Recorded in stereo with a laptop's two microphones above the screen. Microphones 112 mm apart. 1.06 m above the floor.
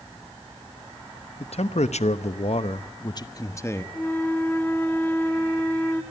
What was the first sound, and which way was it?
A man speaking, 65° left (ahead or behind).